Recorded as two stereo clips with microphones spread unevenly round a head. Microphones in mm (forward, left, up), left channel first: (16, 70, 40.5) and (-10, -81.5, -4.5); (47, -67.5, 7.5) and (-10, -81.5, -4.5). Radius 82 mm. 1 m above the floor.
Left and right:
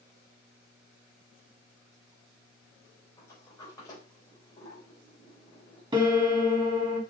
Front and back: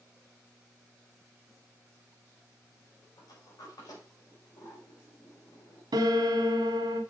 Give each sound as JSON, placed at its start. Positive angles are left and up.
{"t": 3.2, "sound": "a sliding door", "azimuth_deg": 10, "distance_m": 3.5}
{"t": 5.9, "sound": "a piano", "azimuth_deg": -165, "distance_m": 1.4}